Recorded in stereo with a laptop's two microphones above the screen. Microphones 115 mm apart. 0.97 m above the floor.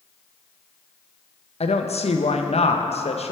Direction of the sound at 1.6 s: 65° left (ahead or behind).